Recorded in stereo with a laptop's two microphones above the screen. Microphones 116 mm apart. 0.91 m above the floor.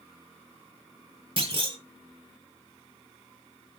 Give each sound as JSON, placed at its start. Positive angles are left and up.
{"t": 1.4, "sound": "a clunk", "side_deg": -50, "distance_m": 1.0}